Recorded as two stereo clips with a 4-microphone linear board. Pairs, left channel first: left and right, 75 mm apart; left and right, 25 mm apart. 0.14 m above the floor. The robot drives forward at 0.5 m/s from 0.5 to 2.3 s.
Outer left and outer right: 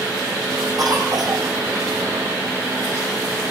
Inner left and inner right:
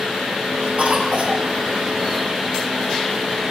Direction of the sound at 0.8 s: 60° right (ahead or behind).